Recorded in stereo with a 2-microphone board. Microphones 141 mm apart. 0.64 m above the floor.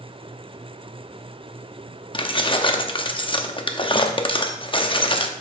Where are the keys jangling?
35° left (ahead or behind), 0.6 m.